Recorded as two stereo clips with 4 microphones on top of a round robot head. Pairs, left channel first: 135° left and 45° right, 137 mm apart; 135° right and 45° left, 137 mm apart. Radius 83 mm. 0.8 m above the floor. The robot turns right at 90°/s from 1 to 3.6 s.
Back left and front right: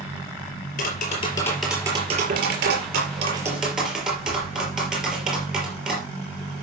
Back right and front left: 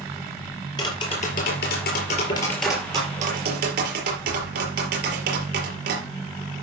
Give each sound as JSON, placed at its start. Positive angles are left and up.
{"t": 0.8, "sound": "tapping", "azimuth_deg": 165, "distance_m": 5.0}